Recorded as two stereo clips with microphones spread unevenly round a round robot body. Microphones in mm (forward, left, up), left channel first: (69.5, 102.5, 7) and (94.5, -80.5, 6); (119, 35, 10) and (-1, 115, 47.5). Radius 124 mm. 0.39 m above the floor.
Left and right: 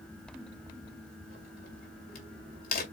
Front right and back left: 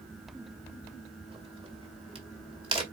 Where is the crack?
95° left, 1.9 m.